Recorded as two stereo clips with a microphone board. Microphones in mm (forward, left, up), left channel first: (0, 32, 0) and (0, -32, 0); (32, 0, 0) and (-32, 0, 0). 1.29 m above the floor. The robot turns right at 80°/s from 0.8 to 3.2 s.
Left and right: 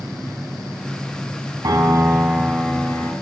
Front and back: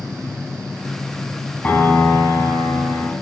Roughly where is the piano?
Ahead right.